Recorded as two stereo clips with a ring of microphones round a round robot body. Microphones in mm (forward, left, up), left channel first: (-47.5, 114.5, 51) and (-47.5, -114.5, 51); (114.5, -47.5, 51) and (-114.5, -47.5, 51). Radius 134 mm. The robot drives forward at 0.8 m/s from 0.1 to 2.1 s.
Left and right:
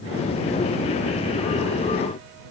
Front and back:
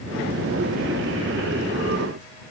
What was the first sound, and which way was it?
Only background noise.